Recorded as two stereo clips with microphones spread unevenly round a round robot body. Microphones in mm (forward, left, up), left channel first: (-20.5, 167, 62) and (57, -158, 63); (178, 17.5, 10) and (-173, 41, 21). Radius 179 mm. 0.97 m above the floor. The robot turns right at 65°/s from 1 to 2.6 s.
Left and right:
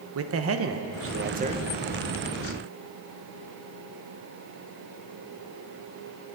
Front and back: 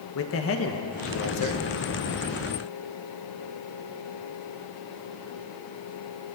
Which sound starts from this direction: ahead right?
A man speaking, at 0.1 s.